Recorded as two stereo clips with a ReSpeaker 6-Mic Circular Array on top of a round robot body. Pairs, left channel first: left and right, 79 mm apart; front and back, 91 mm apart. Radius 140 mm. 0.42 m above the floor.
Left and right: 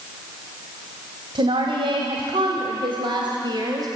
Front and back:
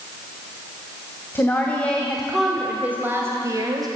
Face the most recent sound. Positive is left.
turn(degrees=-130)